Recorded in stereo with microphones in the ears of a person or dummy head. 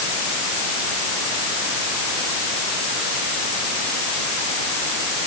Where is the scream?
No scream in this recording.